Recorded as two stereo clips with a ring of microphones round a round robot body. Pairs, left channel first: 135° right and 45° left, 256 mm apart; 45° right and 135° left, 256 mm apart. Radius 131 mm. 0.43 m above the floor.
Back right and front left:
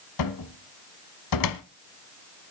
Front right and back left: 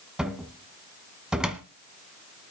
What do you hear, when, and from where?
0.2 s a cupboard door: 140° right, 1.2 m